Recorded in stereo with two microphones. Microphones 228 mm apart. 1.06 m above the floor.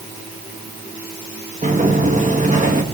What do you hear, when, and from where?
1.6 s a sliding door: 35° right (ahead or behind), 1.9 m